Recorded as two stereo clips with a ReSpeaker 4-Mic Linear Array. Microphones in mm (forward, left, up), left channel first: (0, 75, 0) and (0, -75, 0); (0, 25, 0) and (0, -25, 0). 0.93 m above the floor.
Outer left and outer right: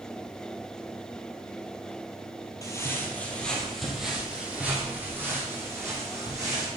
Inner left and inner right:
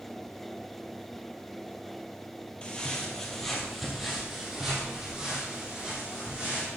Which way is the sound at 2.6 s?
20° left (ahead or behind).